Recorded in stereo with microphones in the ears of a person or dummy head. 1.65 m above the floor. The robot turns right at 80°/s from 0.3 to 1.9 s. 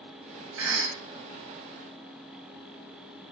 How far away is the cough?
About 0.9 m.